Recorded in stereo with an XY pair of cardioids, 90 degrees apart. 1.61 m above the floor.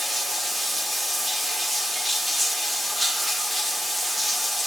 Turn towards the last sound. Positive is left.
turn(degrees=-5)